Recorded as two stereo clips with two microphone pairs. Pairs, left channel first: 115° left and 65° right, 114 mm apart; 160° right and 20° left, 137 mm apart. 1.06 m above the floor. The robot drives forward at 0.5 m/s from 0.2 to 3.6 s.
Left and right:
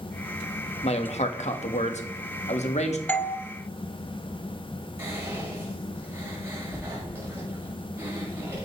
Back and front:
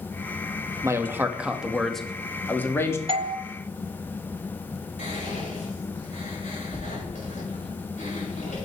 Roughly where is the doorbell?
Ahead left.